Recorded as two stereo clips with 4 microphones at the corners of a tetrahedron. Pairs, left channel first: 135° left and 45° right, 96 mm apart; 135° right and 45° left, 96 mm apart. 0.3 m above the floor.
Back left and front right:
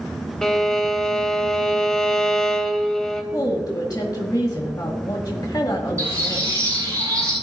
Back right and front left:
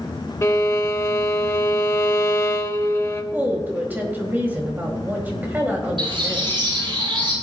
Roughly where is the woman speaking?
Left.